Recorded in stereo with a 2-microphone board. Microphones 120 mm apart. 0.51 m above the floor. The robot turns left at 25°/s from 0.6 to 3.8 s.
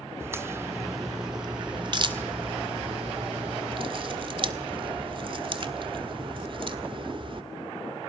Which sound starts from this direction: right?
A crack, at 0.2 s.